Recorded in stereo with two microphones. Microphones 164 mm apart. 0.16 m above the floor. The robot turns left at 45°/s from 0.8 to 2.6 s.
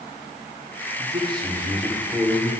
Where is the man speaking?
140° right, 8 m; by 2.5 s 155° left, 8 m.